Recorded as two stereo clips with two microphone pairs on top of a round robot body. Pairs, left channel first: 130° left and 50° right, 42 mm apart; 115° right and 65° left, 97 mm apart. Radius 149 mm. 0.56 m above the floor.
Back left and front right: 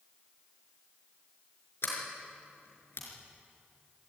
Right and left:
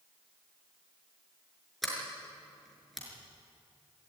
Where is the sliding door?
155° left, 5.5 m.